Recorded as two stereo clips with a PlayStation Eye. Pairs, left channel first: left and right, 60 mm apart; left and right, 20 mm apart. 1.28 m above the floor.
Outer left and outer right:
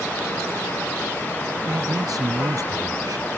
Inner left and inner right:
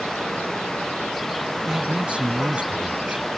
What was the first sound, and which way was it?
A man speaking, 85° right.